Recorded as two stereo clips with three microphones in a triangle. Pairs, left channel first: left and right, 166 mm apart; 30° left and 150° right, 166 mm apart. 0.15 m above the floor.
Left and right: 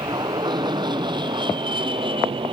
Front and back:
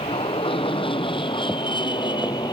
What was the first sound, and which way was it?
An aircraft, 25° right.